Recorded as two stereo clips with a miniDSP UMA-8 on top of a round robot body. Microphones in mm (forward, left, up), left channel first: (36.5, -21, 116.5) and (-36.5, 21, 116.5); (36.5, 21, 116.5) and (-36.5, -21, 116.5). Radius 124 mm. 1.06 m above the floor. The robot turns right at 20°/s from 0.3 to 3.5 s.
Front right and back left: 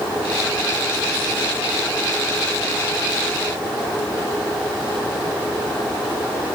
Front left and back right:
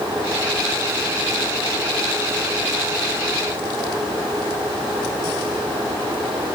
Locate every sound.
Only background noise.